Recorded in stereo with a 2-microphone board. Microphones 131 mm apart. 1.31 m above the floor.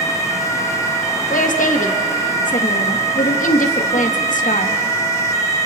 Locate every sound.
1.3 s a woman speaking: 80° left, 1.6 m